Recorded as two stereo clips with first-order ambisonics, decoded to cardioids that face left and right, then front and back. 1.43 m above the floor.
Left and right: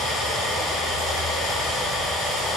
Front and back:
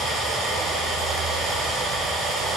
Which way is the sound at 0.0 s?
125° left.